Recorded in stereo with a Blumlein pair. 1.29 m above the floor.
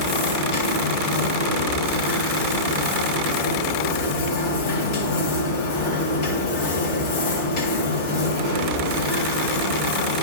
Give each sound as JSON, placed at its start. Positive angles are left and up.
{"t": 0.0, "sound": "a machine running", "azimuth_deg": 45, "distance_m": 2.5}